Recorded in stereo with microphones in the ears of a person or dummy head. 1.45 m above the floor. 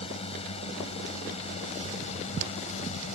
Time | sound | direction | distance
0.0 | a drone | 30° left (ahead or behind) | ?